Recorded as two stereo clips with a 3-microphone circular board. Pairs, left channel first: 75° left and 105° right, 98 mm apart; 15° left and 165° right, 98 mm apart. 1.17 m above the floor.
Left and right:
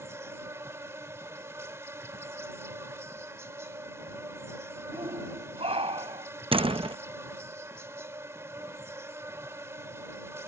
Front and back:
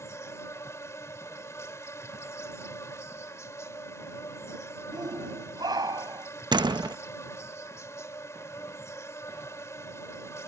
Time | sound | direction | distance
0.0 | an insect | 45° right | ?
4.9 | a shout | 120° right | ?
6.5 | a door slam | 125° right | ?